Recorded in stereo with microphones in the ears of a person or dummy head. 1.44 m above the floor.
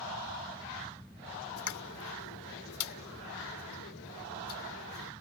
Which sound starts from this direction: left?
A pop, at 1.6 s.